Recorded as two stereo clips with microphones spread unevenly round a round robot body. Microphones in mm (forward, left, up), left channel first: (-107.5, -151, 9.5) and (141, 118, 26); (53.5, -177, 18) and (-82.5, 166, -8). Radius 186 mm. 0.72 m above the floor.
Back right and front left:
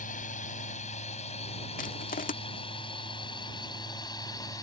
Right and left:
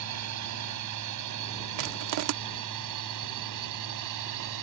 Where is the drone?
155° left; by 4.6 s 145° left.